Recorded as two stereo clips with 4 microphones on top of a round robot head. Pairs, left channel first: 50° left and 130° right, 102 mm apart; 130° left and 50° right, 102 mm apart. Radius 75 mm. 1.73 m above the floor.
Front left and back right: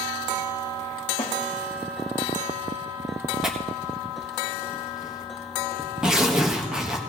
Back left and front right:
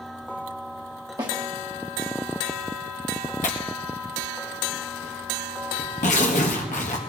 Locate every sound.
1.2 s a snare drum: 5° left, 1.8 m
3.4 s tearing paper: 145° left, 1.4 m